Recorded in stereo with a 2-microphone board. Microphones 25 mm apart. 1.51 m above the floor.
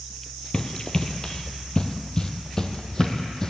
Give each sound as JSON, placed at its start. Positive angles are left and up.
{"t": 0.5, "sound": "running footsteps", "side_deg": 25, "distance_m": 1.6}